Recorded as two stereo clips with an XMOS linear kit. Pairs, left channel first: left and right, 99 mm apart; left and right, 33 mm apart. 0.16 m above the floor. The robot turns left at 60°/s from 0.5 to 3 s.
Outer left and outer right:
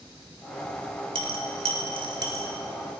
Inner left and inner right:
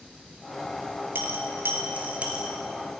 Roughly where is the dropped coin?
Right.